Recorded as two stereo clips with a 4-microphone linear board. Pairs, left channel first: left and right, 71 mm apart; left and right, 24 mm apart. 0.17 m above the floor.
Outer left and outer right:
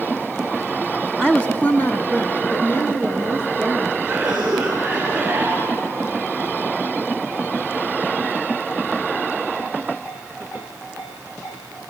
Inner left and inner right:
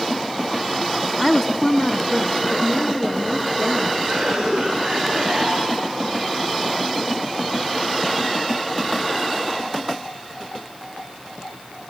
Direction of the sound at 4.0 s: 15° right (ahead or behind).